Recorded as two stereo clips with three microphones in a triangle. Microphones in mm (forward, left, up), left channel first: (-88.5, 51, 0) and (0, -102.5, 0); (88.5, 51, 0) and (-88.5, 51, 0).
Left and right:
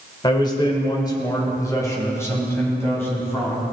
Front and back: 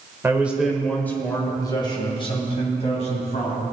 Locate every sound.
0.2 s a man speaking: 125° left, 1.5 m; by 3.6 s 45° left, 3.5 m